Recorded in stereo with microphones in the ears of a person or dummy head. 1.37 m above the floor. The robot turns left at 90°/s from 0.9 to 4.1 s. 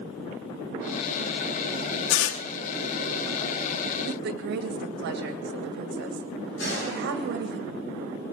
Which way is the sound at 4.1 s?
75° right (ahead or behind).